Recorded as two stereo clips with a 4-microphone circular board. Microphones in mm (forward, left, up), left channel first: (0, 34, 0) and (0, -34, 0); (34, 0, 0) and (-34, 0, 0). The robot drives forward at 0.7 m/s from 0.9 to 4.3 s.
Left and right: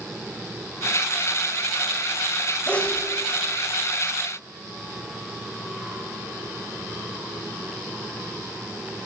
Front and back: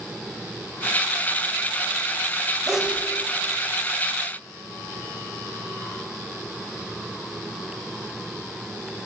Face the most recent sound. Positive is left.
turn(degrees=165)